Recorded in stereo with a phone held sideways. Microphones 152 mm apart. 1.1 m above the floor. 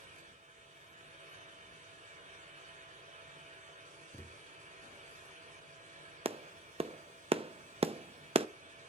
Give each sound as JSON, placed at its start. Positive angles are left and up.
{"t": 0.0, "sound": "a fan", "side_deg": -70, "distance_m": 7.5}
{"t": 4.1, "sound": "a thud", "side_deg": 20, "distance_m": 0.7}
{"t": 6.2, "sound": "a clap", "side_deg": -40, "distance_m": 0.5}